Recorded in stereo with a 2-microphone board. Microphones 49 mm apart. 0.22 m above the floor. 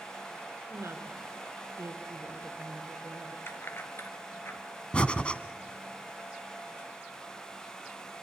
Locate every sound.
0.7 s a woman speaking: 65° right (ahead or behind), 3 m
3.5 s keys jangling: 55° left (ahead or behind), 2.5 m
4.9 s breathing: 25° left (ahead or behind), 1.1 m